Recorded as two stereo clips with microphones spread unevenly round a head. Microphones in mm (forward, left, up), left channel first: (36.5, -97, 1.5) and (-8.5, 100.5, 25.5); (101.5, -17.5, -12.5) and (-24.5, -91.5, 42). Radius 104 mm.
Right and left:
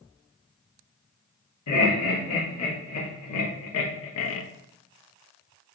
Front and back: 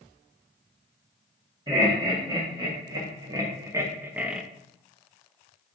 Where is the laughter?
85° right, 1.8 m; by 4.4 s 60° right, 0.5 m.